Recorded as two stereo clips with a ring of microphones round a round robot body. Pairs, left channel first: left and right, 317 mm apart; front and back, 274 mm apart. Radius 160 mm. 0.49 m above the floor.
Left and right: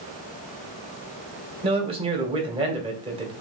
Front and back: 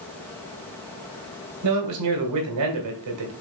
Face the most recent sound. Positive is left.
turn(degrees=-160)